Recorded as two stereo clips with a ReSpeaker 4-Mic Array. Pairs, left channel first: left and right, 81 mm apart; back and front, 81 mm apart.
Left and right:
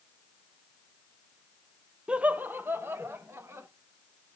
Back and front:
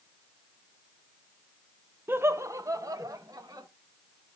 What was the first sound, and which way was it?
Laughter, 25° right.